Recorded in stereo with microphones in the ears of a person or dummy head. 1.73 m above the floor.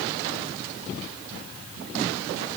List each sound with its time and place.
Only background noise.